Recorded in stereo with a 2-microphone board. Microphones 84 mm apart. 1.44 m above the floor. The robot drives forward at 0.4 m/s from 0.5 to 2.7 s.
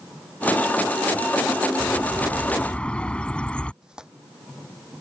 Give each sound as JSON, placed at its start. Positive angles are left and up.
{"t": 1.8, "sound": "a bird", "side_deg": 15}
{"t": 3.8, "sound": "tearing paper", "side_deg": -10}